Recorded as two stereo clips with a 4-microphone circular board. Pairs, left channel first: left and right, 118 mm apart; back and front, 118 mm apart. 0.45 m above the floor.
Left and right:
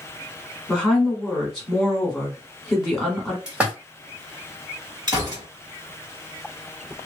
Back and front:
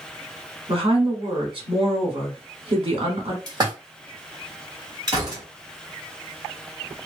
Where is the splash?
15° right, 1.2 m.